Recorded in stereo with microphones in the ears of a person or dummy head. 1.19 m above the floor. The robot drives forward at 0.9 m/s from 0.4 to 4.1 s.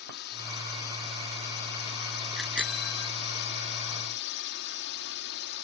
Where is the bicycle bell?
Centre (ahead or behind).